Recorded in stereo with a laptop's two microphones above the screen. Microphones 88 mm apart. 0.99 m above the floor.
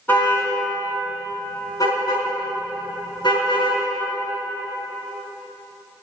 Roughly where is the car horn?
Left.